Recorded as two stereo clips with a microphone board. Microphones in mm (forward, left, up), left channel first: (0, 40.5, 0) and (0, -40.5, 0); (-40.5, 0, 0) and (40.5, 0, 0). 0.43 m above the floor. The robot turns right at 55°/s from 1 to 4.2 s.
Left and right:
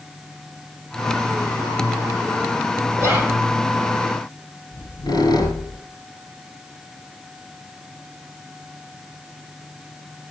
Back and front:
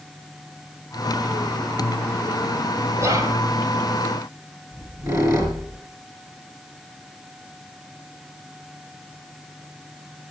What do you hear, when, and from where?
3.0 s whispering: 45° right, 2 m; by 3.4 s 20° right, 2 m
4.7 s a squeak: 50° left, 3 m